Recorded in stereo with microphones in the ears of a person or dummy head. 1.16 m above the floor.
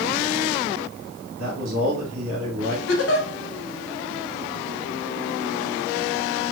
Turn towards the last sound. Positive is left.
turn(degrees=65)  # may be behind; listen again after turning